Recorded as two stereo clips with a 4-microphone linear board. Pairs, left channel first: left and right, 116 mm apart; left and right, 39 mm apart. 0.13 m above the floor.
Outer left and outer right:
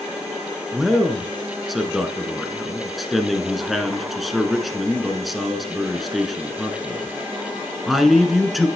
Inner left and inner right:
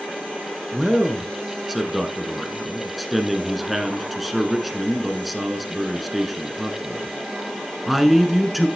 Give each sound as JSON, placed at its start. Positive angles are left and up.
{"t": 0.7, "sound": "a man speaking", "side_deg": 0, "distance_m": 1.4}